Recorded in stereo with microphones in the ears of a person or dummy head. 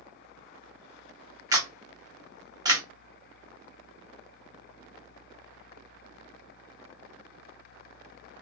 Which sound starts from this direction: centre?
A camera shutter, at 1.5 s.